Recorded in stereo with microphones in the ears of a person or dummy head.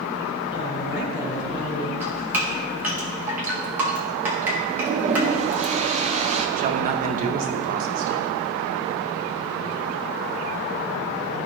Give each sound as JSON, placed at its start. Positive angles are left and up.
{"t": 0.5, "sound": "a woman speaking", "side_deg": 55, "distance_m": 3.0}
{"t": 2.0, "sound": "dripping", "side_deg": -15, "distance_m": 1.0}
{"t": 4.7, "sound": "a toilet flushing", "side_deg": -35, "distance_m": 0.5}
{"t": 6.6, "sound": "a man speaking", "side_deg": -40, "distance_m": 0.6}